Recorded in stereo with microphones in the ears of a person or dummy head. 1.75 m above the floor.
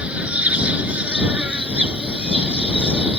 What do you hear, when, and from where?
0.0 s an insect: 5° right (ahead or behind)